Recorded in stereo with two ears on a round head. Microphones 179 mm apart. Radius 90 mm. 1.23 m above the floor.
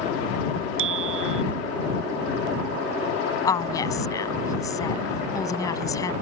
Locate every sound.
0.8 s a bicycle bell: 70° right (ahead or behind)
3.5 s a woman speaking: 15° left (ahead or behind)